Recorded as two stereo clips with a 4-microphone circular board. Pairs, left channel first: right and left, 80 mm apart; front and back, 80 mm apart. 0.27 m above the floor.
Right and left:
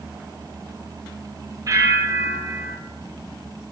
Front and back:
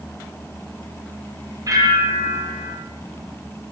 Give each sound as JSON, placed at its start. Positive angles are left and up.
{"t": 1.7, "sound": "a bell", "azimuth_deg": 135, "distance_m": 5.0}